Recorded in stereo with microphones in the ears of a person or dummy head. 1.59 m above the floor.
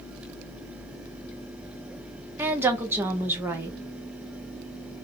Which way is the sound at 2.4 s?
15° right (ahead or behind).